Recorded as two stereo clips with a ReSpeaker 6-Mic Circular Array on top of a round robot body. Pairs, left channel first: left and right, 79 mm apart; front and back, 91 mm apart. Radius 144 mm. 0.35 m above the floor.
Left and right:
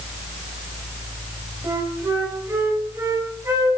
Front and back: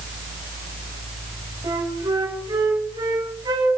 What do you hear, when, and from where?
1.6 s a flute: 140° right, 4.5 m